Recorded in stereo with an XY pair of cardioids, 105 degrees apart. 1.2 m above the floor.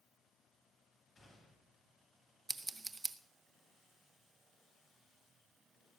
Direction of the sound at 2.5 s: 25° right.